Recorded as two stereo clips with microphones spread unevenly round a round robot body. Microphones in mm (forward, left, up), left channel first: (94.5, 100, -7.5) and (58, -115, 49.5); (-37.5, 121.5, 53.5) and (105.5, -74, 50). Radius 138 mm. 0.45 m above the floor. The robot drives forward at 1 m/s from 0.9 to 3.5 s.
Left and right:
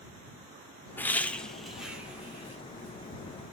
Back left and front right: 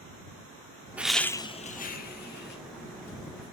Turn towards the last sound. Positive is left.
turn(degrees=175)